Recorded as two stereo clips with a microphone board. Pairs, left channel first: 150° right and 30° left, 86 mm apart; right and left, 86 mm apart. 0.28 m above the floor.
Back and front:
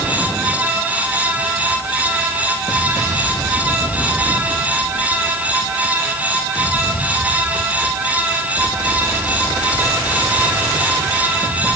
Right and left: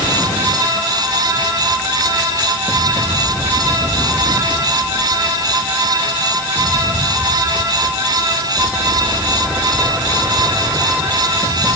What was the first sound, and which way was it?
Only background noise.